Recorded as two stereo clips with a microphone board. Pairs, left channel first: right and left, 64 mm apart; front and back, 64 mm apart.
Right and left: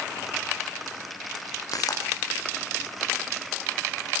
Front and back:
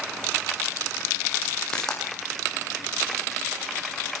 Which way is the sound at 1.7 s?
80° right.